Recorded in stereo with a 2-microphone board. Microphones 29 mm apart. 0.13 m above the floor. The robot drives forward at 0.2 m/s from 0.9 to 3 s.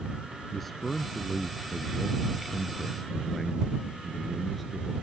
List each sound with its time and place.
0.5 s a man speaking: 5° left (ahead or behind)